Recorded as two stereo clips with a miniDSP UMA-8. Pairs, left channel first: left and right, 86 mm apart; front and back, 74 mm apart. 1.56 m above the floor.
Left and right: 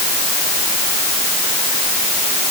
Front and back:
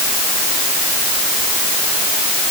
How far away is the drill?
No drill in this recording.